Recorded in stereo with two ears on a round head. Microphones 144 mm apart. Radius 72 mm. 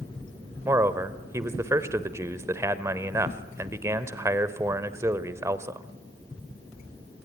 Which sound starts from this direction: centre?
A man speaking, at 0.7 s.